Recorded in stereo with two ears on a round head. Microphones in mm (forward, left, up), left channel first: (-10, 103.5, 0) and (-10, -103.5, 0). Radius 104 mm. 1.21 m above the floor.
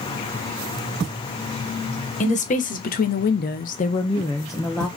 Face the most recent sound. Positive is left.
turn(degrees=5)  # may be behind; listen again after turning